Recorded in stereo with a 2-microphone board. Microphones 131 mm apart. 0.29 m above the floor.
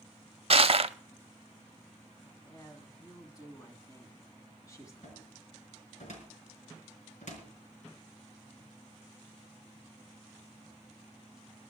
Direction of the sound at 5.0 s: 65° left (ahead or behind).